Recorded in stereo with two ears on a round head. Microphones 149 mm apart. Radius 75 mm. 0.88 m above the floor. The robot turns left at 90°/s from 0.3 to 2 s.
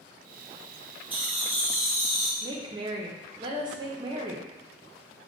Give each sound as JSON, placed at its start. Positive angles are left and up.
{"t": 1.1, "sound": "laughter", "side_deg": -10, "distance_m": 0.7}
{"t": 2.4, "sound": "a woman speaking", "side_deg": -25, "distance_m": 0.5}